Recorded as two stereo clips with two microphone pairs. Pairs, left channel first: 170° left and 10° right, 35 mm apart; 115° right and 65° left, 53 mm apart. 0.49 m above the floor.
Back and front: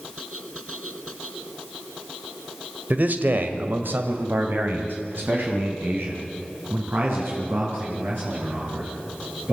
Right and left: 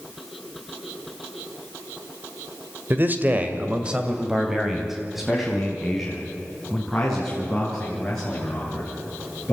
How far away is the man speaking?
About 1.6 m.